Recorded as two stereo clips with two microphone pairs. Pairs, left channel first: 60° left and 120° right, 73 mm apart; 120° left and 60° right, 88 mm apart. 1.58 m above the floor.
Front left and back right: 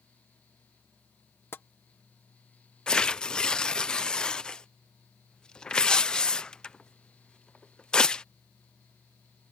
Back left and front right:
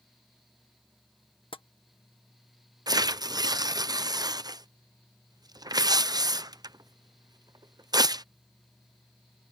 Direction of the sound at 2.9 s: 15° right.